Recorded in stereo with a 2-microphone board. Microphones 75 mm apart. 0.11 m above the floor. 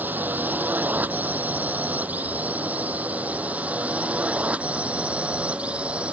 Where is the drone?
25° right (ahead or behind); by 6.1 s 15° right (ahead or behind).